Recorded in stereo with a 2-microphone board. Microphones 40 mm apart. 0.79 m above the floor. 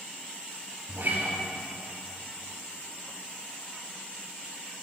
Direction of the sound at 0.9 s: 65° right (ahead or behind).